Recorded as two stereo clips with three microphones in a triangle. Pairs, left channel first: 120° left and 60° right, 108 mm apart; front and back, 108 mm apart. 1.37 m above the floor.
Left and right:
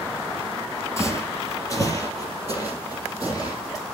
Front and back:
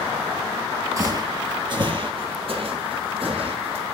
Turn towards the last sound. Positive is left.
turn(degrees=170)